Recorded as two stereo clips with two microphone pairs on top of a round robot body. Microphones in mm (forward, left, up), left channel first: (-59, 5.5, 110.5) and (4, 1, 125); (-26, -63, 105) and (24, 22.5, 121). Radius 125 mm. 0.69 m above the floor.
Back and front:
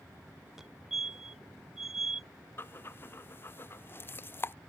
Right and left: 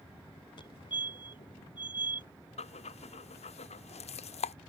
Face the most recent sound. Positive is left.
turn(degrees=-125)